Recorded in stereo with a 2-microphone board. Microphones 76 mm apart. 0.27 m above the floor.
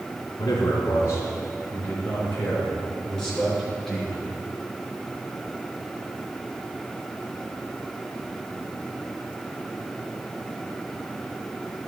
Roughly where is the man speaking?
Left.